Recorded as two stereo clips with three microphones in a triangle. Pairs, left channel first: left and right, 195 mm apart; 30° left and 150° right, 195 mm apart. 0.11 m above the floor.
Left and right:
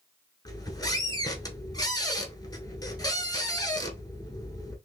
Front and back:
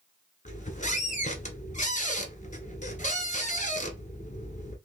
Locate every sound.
0.5 s a squeak: 35° left, 0.9 m